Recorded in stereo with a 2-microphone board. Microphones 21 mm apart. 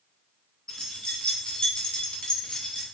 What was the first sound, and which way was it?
Keys jangling, 35° left (ahead or behind).